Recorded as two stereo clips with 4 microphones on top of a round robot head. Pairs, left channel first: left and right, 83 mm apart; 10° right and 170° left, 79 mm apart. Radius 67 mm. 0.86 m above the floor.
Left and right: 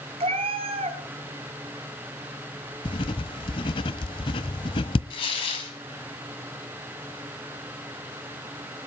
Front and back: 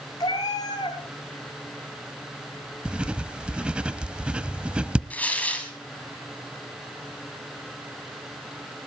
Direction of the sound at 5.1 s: 60° left.